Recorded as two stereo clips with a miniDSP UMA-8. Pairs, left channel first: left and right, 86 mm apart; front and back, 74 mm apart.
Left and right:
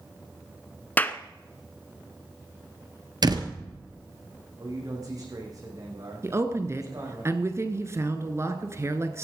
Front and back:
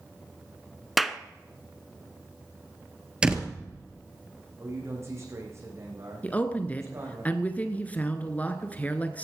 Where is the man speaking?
130° right, 6 m.